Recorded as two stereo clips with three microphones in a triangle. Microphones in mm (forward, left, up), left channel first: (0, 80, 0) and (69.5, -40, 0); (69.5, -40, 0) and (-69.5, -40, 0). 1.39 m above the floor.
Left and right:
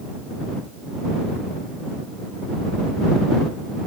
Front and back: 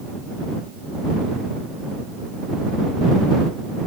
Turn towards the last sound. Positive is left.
No sound to turn to.